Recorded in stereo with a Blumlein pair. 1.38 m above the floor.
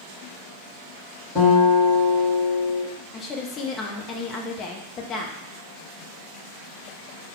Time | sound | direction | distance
1.4 | a guitar | 25° left | 2.0 m
3.1 | a woman speaking | 25° left | 0.7 m